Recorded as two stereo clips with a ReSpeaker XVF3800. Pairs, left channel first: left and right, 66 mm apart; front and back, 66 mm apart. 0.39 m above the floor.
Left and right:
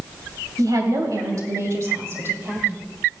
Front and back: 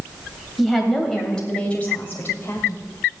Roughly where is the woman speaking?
Right.